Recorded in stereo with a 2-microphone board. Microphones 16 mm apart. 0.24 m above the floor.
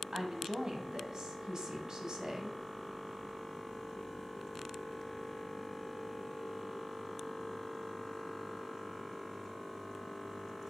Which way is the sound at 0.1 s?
45° right (ahead or behind).